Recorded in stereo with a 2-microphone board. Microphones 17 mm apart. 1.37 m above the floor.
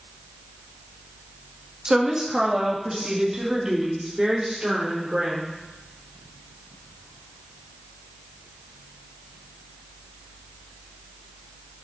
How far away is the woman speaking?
About 1.6 m.